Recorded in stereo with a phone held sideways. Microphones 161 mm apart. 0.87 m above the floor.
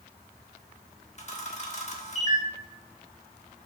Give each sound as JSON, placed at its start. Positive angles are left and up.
{"t": 1.2, "sound": "a camera shutter", "side_deg": 45, "distance_m": 1.3}